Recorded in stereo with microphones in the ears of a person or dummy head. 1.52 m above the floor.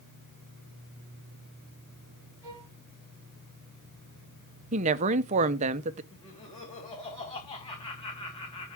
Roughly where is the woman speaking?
Right.